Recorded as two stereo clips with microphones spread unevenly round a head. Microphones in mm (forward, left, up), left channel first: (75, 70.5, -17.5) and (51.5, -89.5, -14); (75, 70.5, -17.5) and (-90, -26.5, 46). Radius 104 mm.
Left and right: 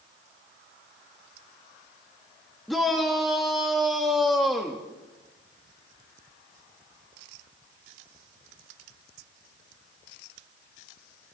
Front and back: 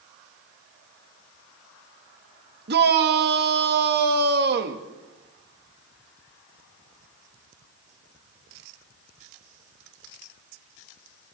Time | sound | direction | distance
2.7 | a shout | 170° left | 1.9 m